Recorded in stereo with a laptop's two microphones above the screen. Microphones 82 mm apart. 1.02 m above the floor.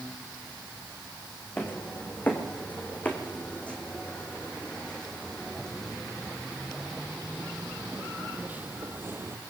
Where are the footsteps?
20° left (ahead or behind), 5 m; by 9.4 s 30° right (ahead or behind), 1.9 m.